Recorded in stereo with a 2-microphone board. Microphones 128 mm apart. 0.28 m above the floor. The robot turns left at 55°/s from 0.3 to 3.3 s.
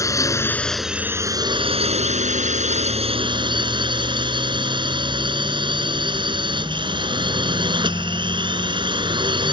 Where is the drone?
25° left; by 9.5 s 140° right.